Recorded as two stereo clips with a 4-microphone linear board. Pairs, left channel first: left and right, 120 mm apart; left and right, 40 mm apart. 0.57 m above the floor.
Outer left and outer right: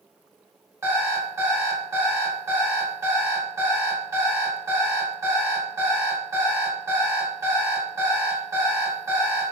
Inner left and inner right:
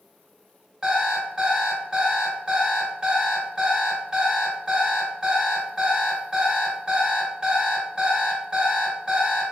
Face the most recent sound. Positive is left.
turn(degrees=-25)  # may be behind; listen again after turning